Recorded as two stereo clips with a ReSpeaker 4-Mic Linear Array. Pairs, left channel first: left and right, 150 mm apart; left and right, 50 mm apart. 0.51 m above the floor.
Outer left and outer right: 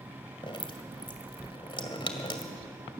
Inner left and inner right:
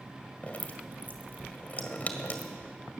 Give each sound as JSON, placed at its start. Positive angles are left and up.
{"t": 0.4, "sound": "dripping", "side_deg": 35, "distance_m": 1.8}